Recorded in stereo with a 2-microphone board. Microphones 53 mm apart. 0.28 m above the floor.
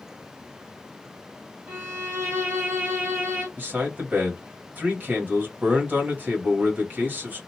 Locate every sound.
1.7 s a violin: 45° right (ahead or behind), 1.9 m
3.6 s a man speaking: 40° right (ahead or behind), 1.3 m